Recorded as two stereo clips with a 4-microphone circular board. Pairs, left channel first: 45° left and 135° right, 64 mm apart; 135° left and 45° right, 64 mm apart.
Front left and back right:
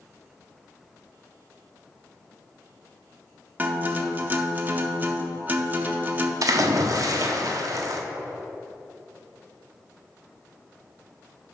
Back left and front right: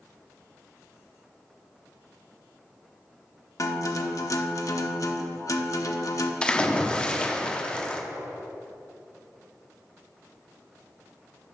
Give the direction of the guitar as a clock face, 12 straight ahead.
7 o'clock.